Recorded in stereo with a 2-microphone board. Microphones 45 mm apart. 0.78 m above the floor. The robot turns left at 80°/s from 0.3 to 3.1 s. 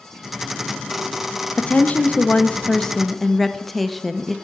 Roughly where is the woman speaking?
Left.